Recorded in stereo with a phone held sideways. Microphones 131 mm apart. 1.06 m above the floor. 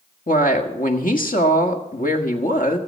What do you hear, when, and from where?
0.3 s a woman speaking: 85° left, 1.5 m